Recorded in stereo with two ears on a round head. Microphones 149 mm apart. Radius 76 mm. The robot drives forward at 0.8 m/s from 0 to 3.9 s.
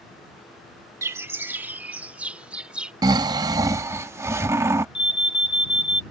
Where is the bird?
20° right (ahead or behind); by 2.9 s 5° right (ahead or behind).